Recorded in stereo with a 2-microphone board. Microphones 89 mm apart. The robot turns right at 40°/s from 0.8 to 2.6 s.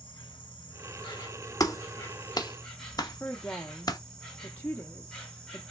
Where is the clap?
45° left (ahead or behind), 0.7 m; by 4.0 s 50° left (ahead or behind), 0.7 m.